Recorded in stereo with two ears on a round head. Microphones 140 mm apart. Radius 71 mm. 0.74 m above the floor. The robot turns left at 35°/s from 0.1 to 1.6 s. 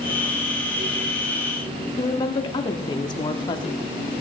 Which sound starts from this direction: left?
A woman speaking, at 2.0 s.